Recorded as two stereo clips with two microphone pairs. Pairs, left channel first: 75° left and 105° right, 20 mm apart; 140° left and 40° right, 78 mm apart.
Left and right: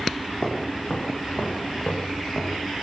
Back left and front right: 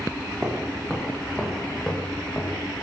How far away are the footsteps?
About 6.5 m.